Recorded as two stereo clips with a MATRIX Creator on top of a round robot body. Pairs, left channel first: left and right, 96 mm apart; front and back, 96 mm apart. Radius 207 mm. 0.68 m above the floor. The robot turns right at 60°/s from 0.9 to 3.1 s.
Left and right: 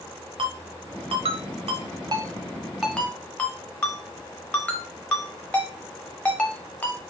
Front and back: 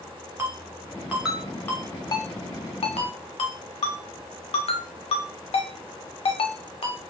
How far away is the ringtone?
About 0.7 m.